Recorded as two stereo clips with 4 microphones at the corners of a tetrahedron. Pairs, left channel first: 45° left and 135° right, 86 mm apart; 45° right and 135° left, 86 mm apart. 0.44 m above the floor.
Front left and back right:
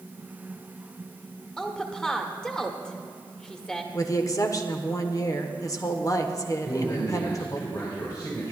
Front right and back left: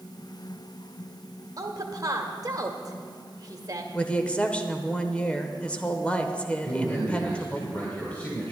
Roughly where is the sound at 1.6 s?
Behind left.